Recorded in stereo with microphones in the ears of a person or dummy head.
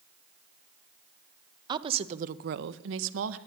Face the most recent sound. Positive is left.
turn(degrees=-80)